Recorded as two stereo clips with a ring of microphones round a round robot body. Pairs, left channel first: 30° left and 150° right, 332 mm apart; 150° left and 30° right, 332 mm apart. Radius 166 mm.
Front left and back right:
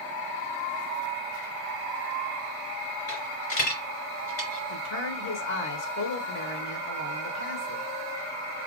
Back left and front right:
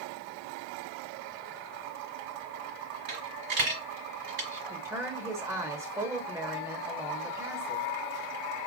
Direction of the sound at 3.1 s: Straight ahead.